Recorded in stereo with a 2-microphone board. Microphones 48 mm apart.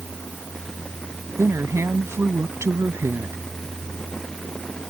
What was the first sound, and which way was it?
A woman speaking, 75° right (ahead or behind).